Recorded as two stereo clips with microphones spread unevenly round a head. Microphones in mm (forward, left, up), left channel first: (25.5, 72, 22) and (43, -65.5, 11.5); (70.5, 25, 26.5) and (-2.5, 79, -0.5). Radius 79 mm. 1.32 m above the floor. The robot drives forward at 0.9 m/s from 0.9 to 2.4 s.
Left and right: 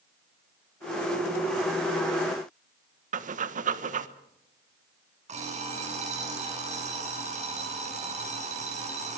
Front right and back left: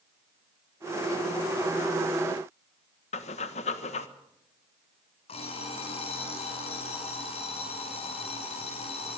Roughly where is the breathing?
Ahead right.